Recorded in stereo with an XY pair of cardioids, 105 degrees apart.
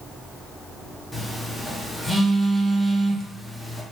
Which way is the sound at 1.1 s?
Straight ahead.